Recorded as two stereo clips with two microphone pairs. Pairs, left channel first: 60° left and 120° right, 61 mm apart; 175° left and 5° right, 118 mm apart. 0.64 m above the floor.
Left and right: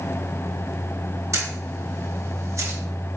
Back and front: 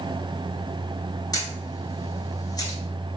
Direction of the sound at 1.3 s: 135° right.